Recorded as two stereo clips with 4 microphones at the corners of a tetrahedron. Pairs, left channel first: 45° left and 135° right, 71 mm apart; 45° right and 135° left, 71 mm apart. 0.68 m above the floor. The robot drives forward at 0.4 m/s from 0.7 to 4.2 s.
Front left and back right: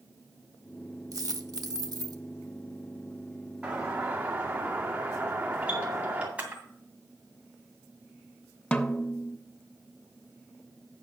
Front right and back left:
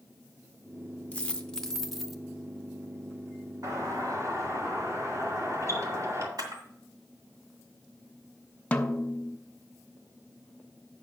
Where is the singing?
I don't hear singing.